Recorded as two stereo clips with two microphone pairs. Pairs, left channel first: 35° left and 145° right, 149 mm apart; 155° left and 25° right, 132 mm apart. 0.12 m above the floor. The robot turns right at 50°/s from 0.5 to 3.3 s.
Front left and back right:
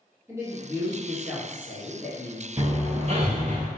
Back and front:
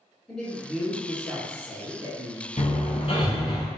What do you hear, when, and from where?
0.3 s a man speaking: 130° right, 1.4 m; by 2.5 s 30° right, 1.4 m
2.6 s hammering: 160° left, 0.8 m; by 3.7 s 165° right, 0.8 m